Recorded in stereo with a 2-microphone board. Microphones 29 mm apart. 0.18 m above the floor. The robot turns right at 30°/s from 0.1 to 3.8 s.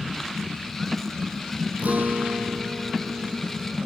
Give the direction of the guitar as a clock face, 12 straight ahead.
4 o'clock.